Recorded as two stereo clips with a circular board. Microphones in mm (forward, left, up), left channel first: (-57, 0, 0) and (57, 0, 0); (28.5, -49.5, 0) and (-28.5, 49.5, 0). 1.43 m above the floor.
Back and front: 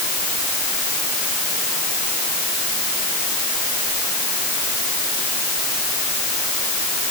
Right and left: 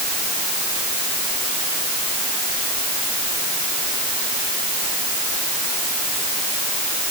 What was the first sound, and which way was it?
Only background noise.